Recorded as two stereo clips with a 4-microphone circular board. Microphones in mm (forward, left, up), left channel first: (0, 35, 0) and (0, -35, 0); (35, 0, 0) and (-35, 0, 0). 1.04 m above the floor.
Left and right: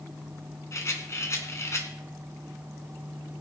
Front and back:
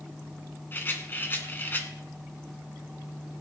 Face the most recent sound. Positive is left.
turn(degrees=55)